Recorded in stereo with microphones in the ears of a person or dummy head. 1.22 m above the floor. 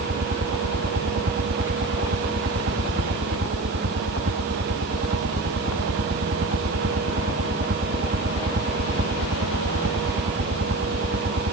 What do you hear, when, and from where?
0.0 s a helicopter: 50° right (ahead or behind)